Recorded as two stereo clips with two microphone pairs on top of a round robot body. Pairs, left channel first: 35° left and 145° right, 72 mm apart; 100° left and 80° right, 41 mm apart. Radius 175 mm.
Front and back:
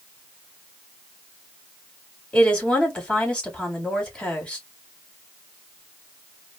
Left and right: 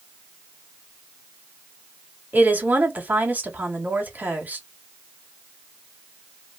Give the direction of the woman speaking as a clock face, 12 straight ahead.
1 o'clock.